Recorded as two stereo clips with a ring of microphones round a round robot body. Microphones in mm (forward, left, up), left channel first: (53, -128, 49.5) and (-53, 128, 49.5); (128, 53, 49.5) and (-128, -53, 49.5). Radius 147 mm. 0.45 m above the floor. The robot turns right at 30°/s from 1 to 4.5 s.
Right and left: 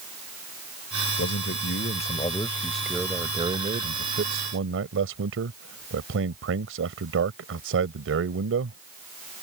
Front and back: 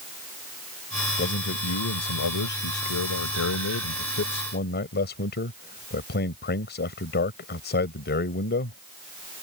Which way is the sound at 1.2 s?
25° right.